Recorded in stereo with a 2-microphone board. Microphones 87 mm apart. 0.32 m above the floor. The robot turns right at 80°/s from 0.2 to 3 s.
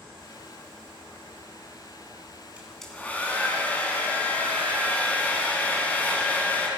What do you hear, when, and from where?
2.6 s a hair dryer: 15° right, 2.5 m; by 6.7 s 20° left, 2.5 m